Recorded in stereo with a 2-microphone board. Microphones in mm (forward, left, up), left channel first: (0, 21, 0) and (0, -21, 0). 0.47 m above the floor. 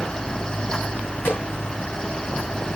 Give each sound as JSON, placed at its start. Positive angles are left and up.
{"t": 1.2, "sound": "a snare drum", "side_deg": 60, "distance_m": 2.5}